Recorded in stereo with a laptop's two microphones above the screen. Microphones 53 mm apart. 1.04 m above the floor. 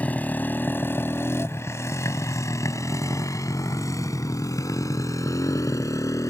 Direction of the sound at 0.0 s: 30° left (ahead or behind).